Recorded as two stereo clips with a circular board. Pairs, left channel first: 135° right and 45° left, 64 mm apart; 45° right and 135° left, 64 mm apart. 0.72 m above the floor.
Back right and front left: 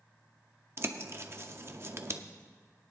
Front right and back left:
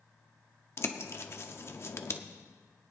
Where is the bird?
Straight ahead, 0.7 m.